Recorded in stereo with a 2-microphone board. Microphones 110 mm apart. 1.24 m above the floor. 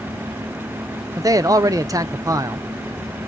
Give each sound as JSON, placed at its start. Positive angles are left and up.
{"t": 1.2, "sound": "a man speaking", "side_deg": -30, "distance_m": 0.6}